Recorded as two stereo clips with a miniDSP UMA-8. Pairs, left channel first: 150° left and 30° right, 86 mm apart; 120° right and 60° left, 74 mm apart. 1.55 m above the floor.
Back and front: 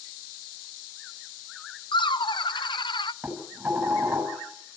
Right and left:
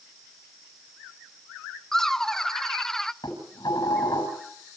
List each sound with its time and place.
1.9 s laughter: 155° left, 0.8 m
3.2 s dishes clattering: 100° right, 6 m